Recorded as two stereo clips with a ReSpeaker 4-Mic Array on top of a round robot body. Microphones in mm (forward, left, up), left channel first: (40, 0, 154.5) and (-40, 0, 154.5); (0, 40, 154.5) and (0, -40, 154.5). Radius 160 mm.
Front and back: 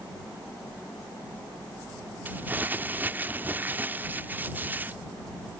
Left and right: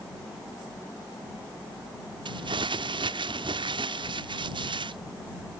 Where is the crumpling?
110° right.